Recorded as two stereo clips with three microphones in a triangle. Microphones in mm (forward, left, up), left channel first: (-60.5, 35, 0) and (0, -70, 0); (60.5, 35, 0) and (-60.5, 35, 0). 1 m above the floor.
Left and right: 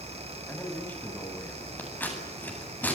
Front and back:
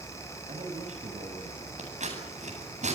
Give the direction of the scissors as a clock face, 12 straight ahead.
6 o'clock.